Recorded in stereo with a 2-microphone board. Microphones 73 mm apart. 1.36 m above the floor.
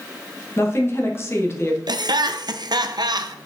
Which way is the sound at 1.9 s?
75° right (ahead or behind).